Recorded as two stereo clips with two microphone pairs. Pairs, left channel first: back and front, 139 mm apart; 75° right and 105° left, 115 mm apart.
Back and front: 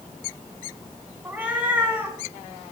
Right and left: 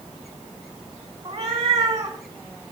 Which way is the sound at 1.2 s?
75° left.